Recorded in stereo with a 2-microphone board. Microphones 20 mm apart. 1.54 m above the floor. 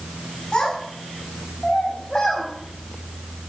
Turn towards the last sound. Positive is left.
turn(degrees=35)  # may be behind; listen again after turning